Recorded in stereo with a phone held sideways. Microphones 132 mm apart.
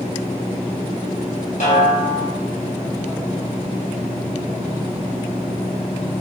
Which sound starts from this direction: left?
A snare drum, at 1.6 s.